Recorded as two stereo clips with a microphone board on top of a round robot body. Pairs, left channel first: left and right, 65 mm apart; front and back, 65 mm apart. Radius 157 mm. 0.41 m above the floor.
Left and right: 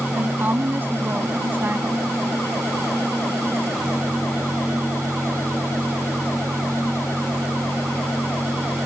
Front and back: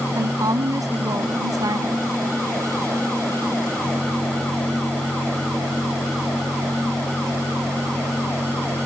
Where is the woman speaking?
155° right.